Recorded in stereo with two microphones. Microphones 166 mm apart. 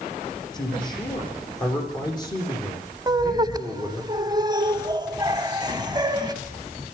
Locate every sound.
0.5 s a man speaking: 25° left (ahead or behind), 8.5 m
3.1 s laughter: 25° right (ahead or behind), 1.4 m